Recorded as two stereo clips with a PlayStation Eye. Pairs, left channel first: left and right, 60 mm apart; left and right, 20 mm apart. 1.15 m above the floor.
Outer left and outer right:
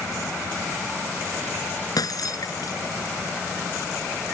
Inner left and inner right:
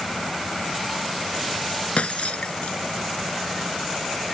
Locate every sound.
2.0 s breaking glass: 75° left (ahead or behind)